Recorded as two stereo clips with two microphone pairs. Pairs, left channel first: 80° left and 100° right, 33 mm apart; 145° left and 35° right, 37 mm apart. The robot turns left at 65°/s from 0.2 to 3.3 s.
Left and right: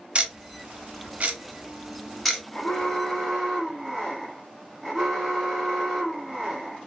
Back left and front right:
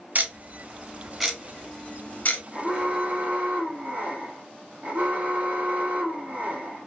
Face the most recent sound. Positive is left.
turn(degrees=-25)